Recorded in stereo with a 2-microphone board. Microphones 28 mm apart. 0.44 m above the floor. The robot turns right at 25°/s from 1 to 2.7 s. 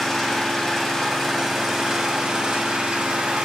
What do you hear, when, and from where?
0.0 s an engine running: straight behind, 2.5 m; by 3.5 s 135° right, 2.5 m